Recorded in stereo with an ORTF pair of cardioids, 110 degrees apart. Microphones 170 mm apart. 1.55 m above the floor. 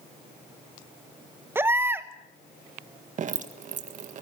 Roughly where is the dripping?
Ahead right.